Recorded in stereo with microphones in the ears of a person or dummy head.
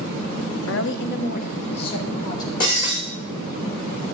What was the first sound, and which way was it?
A woman speaking, 80° left.